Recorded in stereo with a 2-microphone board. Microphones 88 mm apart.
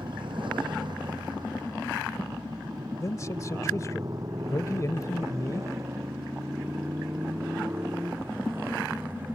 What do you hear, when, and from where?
0.0 s a motorcycle: 65° right (ahead or behind); by 9.4 s 20° right (ahead or behind)
3.0 s a man speaking: 40° left (ahead or behind)